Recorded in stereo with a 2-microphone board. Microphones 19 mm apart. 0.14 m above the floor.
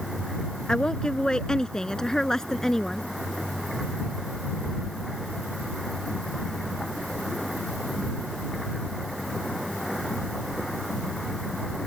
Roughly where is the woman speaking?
Left.